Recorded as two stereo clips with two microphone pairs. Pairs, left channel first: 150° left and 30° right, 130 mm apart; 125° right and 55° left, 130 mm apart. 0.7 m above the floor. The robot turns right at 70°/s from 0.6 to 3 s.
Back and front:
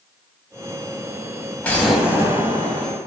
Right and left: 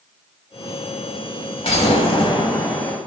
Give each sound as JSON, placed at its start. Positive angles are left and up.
{"t": 1.6, "sound": "an explosion", "azimuth_deg": -135, "distance_m": 0.7}